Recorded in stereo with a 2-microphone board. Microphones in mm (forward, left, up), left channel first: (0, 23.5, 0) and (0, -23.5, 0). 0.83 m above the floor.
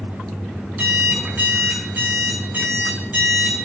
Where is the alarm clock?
40° right (ahead or behind), 3.5 m.